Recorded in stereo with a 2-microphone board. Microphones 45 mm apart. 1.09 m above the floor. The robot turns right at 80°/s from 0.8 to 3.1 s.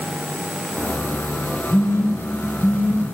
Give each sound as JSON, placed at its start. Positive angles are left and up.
{"t": 1.7, "sound": "a phone buzzing", "side_deg": 65, "distance_m": 5.0}